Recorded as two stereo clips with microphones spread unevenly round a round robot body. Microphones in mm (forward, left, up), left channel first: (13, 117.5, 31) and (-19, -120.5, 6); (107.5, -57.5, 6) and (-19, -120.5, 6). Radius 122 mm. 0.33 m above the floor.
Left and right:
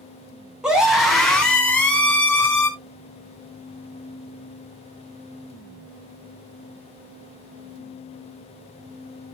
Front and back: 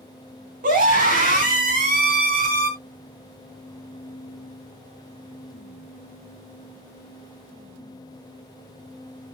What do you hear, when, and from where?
0.6 s a scream: straight behind, 3.5 m; by 2.7 s 160° left, 4 m